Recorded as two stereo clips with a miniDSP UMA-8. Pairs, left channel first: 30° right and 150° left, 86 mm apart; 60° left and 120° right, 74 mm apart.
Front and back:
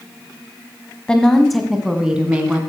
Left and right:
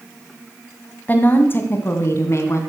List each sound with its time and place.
1.1 s a woman speaking: 35° left, 1.5 m; by 2.6 s 85° left, 2.0 m